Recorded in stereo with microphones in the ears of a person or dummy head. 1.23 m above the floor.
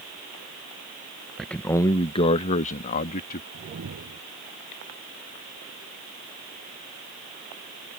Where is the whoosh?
80° right.